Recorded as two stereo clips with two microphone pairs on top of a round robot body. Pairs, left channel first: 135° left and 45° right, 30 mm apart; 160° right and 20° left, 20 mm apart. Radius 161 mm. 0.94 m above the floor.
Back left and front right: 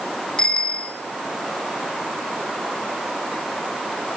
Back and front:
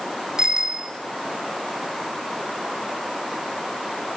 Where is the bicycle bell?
75° left, 3 m.